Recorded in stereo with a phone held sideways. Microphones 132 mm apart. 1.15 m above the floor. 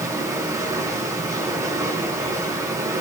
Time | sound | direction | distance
0.0 | running water | 25° right (ahead or behind) | 8.5 m